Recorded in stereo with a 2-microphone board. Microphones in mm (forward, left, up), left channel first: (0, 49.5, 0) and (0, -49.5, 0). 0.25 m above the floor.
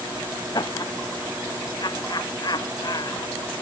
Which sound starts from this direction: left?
Laughter, at 0.5 s.